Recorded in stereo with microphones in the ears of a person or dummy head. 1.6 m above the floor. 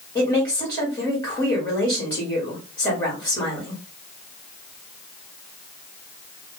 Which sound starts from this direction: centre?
A woman speaking, at 0.1 s.